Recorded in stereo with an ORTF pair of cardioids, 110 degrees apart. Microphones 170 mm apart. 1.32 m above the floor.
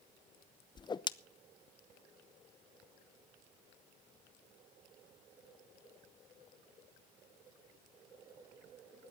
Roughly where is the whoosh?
Ahead left.